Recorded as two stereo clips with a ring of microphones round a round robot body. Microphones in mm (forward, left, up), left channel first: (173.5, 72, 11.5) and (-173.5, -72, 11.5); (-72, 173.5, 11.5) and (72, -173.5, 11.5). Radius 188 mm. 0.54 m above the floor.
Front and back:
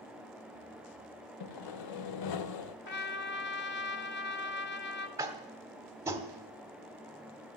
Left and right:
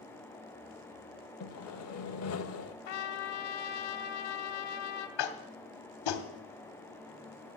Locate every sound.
1.4 s sawing: 60° left, 0.8 m
2.9 s a trumpet: 85° left, 1.1 m
5.2 s tapping: 120° left, 1.2 m